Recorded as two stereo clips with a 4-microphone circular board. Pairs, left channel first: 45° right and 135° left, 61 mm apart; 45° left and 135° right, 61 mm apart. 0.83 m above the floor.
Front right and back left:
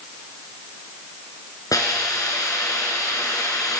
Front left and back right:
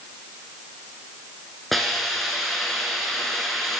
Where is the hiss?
45° right, 3 m.